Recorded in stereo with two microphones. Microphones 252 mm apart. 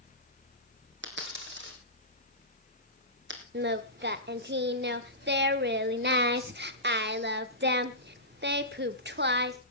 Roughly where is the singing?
Right.